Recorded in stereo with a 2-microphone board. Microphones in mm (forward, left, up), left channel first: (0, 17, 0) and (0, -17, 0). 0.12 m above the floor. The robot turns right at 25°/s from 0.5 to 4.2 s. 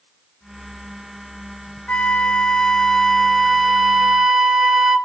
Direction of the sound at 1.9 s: 130° left.